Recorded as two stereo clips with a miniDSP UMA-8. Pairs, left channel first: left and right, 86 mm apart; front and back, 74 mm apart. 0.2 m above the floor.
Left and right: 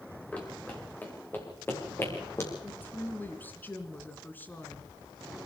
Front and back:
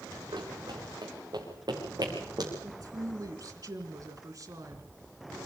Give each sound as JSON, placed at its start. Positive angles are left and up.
{"t": 0.3, "sound": "running footsteps", "azimuth_deg": 165, "distance_m": 5.0}
{"t": 2.6, "sound": "a woman speaking", "azimuth_deg": 155, "distance_m": 2.5}